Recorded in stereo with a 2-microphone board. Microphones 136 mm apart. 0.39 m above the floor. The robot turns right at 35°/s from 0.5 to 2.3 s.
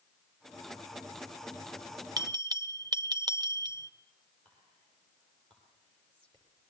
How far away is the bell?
About 0.8 m.